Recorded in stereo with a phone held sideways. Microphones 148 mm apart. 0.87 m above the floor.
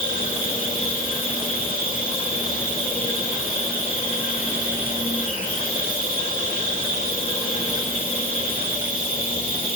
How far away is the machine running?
About 2.5 m.